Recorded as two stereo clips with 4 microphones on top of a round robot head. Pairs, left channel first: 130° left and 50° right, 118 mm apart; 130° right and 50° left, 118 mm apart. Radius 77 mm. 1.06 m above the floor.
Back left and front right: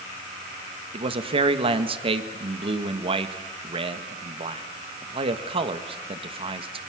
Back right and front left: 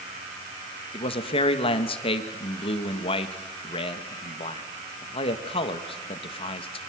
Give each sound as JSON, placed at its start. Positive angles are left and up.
{"t": 0.9, "sound": "a man speaking", "azimuth_deg": -90, "distance_m": 1.7}